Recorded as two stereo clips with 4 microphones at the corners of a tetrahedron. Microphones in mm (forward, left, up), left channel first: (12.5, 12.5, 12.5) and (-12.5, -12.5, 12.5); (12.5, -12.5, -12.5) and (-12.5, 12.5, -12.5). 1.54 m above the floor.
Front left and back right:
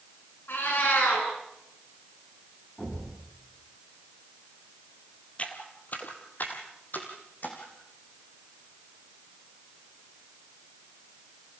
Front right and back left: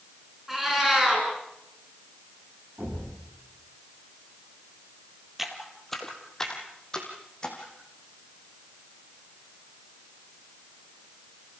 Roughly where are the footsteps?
Ahead left.